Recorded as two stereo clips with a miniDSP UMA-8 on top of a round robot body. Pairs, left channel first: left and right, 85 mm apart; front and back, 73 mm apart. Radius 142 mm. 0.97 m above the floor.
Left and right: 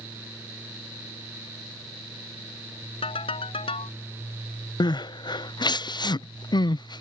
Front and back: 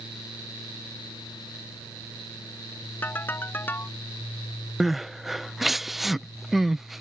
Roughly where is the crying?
Left.